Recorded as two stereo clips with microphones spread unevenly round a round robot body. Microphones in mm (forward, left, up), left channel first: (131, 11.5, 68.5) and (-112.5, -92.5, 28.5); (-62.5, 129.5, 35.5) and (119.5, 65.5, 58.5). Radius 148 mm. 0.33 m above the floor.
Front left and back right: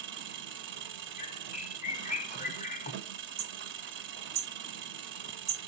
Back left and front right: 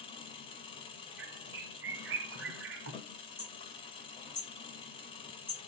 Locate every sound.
0.0 s an engine running: 145° right, 0.8 m
1.2 s a bird: 45° right, 0.5 m
3.4 s hammering: 120° right, 1.2 m